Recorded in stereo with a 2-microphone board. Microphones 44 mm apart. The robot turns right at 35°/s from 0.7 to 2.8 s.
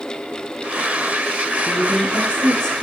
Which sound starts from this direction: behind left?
A woman speaking, at 1.7 s.